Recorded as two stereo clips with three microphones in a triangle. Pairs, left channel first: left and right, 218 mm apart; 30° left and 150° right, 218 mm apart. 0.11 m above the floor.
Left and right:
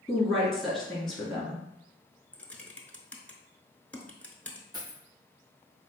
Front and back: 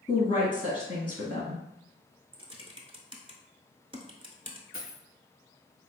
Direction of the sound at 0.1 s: Straight ahead.